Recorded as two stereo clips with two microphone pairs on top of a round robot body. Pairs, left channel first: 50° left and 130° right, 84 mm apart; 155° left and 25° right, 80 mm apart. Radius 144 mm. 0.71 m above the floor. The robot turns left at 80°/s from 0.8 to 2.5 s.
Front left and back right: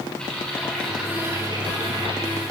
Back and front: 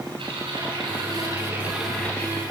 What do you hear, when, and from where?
0.2 s typing on a keyboard: 30° right, 8 m; by 2.4 s 160° right, 8 m